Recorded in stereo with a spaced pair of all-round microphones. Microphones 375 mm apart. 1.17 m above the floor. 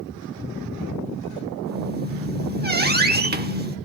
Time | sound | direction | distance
1.7 | a squeak | 25° right (ahead or behind) | 0.9 m